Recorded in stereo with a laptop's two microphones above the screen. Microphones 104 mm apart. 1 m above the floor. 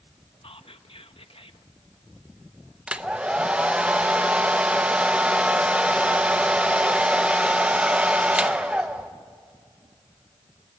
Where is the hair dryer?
10° right (ahead or behind), 0.9 m.